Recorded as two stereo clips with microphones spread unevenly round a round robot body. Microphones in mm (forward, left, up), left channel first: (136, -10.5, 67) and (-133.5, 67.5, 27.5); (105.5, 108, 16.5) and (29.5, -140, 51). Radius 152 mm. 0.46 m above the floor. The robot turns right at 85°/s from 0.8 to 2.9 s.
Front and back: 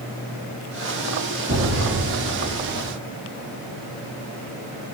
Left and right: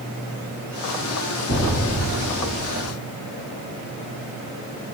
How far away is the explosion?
About 1.7 m.